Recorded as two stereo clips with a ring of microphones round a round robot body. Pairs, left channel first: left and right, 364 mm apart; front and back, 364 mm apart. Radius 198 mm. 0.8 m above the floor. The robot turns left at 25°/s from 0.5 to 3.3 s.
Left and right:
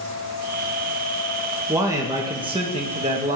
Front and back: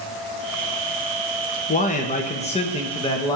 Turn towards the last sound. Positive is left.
turn(degrees=-60)